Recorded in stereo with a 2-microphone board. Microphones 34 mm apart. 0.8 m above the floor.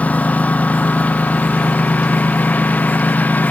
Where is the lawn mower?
50° left (ahead or behind); by 3.5 s 60° left (ahead or behind).